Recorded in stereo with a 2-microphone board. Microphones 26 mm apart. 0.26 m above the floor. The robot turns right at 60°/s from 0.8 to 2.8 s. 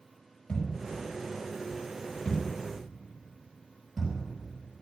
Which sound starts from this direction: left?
A thud, at 0.5 s.